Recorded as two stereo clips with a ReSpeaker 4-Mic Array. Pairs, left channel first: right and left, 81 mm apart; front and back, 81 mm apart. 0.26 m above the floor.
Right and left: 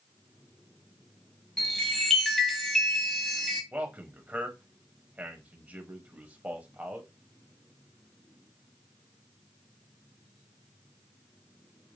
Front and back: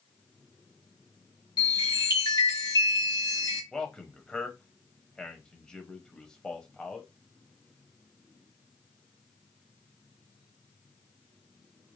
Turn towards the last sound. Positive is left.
turn(degrees=65)